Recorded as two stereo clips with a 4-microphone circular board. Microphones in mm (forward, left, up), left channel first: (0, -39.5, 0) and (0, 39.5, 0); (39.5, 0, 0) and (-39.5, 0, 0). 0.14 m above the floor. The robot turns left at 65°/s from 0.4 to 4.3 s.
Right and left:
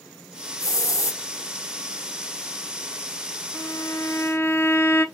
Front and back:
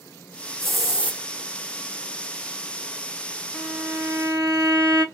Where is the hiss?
80° right, 0.9 m; by 1.2 s 120° right, 0.9 m.